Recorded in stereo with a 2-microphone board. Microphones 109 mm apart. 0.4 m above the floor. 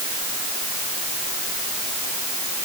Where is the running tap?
I don't hear a running tap.